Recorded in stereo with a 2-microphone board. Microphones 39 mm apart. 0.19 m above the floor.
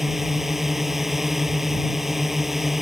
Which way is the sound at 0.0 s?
5° right (ahead or behind).